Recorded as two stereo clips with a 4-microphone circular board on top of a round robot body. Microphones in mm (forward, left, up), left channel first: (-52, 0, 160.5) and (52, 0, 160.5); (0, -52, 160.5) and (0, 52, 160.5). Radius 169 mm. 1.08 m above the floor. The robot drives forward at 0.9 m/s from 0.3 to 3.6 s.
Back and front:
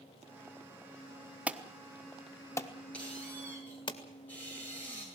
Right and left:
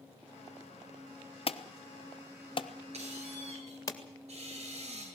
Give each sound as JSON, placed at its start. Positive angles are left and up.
{"t": 1.5, "sound": "an alarm", "azimuth_deg": -75, "distance_m": 1.4}
{"t": 2.9, "sound": "a squeak", "azimuth_deg": 100, "distance_m": 10.0}